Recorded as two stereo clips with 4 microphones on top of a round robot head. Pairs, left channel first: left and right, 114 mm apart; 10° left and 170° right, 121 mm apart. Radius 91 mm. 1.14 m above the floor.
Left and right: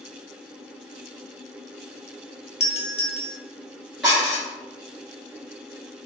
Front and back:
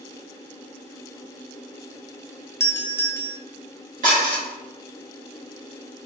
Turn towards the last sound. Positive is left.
turn(degrees=180)